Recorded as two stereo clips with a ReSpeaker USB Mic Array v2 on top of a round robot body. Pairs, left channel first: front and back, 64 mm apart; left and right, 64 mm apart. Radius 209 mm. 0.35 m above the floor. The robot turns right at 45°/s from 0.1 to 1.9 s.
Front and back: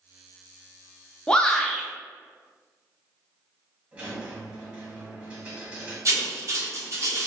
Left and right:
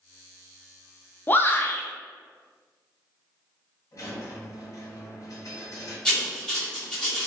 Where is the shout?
65° left, 0.9 m; by 1.9 s 90° left, 0.9 m.